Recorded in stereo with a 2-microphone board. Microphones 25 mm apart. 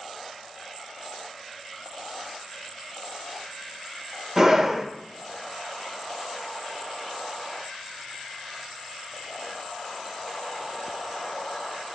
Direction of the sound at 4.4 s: 20° right (ahead or behind).